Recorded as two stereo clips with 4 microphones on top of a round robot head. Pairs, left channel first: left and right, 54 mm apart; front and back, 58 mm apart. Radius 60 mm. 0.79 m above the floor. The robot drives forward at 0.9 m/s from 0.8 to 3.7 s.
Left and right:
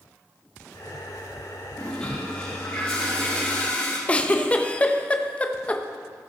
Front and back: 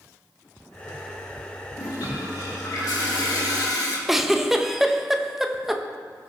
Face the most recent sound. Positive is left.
turn(degrees=100)